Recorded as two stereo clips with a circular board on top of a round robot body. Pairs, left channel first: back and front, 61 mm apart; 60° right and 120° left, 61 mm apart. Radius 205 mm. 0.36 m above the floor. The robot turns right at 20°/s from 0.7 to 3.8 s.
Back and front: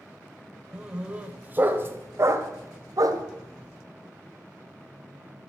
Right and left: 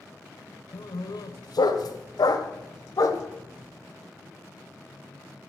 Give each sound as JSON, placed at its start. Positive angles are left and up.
{"t": 0.7, "sound": "a dog barking", "azimuth_deg": -80, "distance_m": 1.2}